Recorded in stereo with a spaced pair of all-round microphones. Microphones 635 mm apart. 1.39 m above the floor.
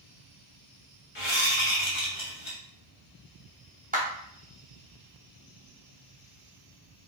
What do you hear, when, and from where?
1.1 s a whoosh: 45° left (ahead or behind), 1.2 m
3.9 s a clap: 15° right (ahead or behind), 0.8 m